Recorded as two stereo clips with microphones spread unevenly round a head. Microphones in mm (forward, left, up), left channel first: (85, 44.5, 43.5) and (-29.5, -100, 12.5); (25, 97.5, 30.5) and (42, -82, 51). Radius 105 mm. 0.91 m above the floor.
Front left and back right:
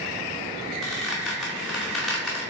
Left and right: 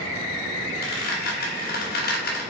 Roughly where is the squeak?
Behind left.